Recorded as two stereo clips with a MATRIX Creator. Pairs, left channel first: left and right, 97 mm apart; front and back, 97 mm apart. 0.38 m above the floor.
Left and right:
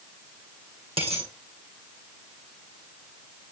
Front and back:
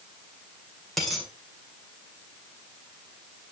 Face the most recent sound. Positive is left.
turn(degrees=-90)